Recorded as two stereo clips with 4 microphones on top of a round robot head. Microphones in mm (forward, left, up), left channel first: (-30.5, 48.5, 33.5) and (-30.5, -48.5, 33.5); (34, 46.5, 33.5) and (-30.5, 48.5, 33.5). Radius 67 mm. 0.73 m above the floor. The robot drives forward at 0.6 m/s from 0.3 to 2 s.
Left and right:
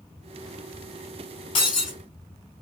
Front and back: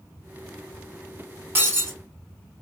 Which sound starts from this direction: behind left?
Breaking glass, at 1.6 s.